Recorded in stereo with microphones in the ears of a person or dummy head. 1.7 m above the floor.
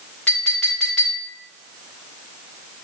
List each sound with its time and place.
0.3 s a clink: 5° left (ahead or behind), 1.0 m